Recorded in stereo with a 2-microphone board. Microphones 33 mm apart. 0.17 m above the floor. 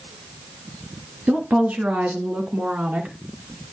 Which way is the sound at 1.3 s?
45° right (ahead or behind).